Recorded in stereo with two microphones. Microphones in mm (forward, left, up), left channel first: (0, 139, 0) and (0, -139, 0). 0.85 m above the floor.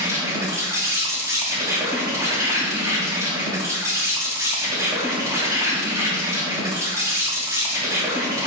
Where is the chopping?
No chopping in this recording.